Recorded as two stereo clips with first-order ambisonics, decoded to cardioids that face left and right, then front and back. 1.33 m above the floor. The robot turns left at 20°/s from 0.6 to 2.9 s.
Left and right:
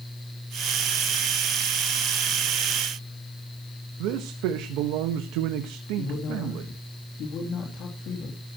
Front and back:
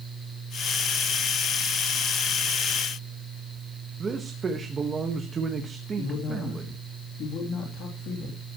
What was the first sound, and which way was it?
A man speaking, 110° right.